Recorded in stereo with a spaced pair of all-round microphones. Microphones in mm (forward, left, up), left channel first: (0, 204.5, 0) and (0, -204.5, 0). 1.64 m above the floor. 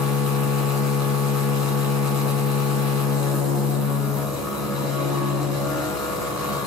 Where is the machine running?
40° left (ahead or behind), 0.9 m.